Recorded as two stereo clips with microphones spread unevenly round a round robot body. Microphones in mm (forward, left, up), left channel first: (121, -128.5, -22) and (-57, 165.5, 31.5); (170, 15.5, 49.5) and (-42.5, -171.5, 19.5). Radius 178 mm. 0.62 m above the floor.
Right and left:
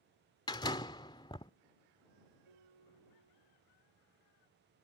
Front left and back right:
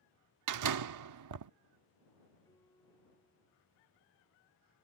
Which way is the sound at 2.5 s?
125° left.